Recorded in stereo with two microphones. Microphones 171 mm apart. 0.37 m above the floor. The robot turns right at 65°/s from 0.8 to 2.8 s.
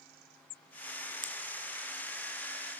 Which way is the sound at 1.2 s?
50° left (ahead or behind).